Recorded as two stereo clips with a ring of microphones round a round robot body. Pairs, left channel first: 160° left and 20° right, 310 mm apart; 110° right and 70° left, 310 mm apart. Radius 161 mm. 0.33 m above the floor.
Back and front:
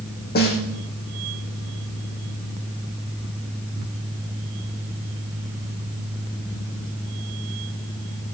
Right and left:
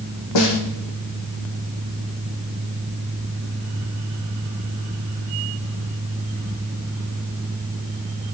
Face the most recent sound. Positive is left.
turn(degrees=-140)